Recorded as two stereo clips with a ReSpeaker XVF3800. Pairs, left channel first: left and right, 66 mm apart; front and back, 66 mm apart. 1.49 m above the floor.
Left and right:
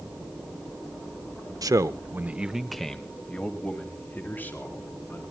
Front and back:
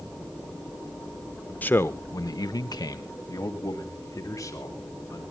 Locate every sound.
1.6 s a man speaking: 65° right, 1.1 m; by 5.2 s 35° left, 4.5 m